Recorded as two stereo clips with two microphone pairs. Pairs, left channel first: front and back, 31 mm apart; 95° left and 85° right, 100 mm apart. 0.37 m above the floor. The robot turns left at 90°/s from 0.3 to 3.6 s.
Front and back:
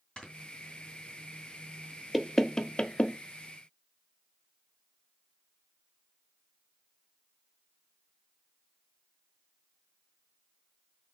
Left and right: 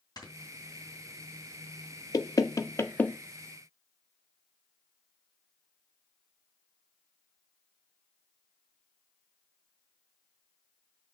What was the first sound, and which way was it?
Snoring, 55° left.